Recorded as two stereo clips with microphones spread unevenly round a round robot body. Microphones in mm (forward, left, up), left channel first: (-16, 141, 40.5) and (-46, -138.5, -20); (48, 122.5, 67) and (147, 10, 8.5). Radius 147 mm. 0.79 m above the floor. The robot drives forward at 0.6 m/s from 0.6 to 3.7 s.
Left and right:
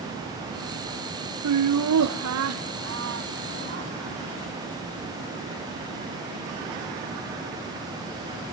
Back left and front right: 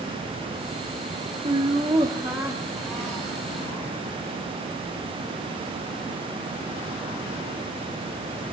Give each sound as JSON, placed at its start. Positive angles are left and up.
{"t": 1.4, "sound": "laughter", "azimuth_deg": -105, "distance_m": 1.2}